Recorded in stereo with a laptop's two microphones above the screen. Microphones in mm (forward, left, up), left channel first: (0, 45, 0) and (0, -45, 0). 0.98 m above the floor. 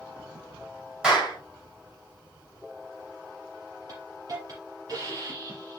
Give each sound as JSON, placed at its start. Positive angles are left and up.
{"t": 1.0, "sound": "a clap", "side_deg": -10, "distance_m": 3.0}
{"t": 3.9, "sound": "a hiss", "side_deg": -45, "distance_m": 4.5}